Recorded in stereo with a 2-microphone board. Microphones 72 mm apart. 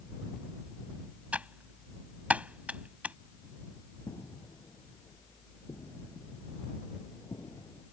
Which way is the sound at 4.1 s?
55° left (ahead or behind).